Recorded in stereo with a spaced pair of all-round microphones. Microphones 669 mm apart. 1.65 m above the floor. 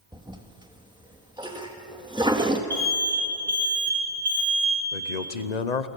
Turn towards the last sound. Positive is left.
turn(degrees=75)  # may be behind; listen again after turning